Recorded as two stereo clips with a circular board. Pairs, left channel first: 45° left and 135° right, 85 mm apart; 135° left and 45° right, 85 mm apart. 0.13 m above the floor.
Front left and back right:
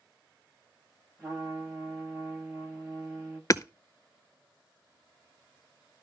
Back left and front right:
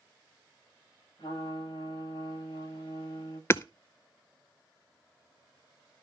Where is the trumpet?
150° left, 10 m.